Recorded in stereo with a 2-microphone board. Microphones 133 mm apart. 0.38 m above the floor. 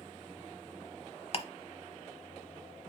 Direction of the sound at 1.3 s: 45° left (ahead or behind).